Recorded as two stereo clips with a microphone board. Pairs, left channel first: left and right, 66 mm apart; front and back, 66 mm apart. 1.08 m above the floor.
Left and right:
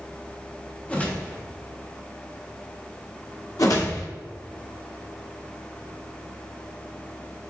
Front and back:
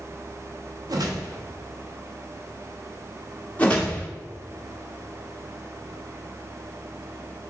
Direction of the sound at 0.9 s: 160° left.